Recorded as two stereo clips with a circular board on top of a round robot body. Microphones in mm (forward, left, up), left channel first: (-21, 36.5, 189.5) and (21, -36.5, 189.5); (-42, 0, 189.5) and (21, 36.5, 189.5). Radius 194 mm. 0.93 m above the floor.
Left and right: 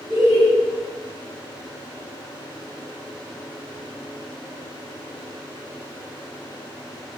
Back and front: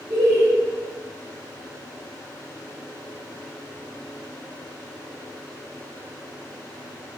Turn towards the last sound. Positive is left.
turn(degrees=25)